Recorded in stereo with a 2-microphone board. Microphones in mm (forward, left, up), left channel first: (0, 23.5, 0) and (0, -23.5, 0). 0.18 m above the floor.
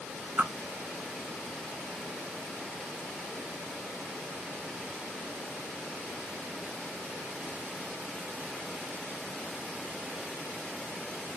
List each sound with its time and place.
0.4 s a whoosh: 45° right (ahead or behind), 0.9 m